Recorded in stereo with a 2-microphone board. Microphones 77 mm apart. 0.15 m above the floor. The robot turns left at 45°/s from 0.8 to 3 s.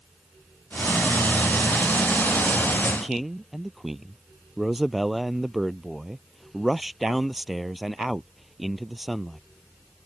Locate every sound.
2.9 s a man speaking: centre (ahead or behind); by 9.4 s 5° right (ahead or behind)